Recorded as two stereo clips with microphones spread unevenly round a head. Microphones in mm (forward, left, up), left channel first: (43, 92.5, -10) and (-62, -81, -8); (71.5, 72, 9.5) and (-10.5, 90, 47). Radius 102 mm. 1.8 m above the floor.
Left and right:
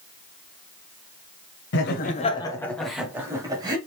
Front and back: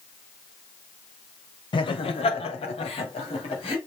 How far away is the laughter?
About 0.7 m.